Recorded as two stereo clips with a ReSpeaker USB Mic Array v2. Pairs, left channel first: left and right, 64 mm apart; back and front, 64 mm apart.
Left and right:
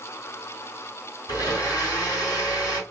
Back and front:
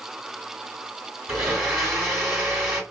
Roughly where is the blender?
Left.